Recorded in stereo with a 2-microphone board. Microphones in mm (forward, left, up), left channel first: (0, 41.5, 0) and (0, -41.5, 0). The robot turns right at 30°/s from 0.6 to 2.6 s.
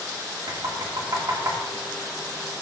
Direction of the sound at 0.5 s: 75° right (ahead or behind).